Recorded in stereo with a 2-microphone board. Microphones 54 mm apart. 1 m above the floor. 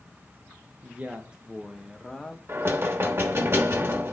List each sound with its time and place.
0.8 s a man speaking: 35° right (ahead or behind), 0.8 m; by 2.4 s 15° left (ahead or behind), 1.1 m
2.5 s knocking: 50° right (ahead or behind), 1.1 m